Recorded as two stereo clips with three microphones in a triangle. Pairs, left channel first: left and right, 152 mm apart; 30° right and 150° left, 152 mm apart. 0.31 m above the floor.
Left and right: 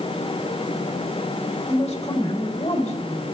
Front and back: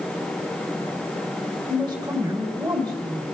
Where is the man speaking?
100° left, 1.8 m.